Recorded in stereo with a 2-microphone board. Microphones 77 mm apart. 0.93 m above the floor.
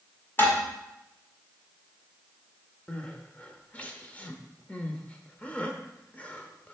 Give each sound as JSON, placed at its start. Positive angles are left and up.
{"t": 0.4, "sound": "dishes clattering", "side_deg": 30, "distance_m": 1.5}
{"t": 2.9, "sound": "crying", "side_deg": 20, "distance_m": 0.8}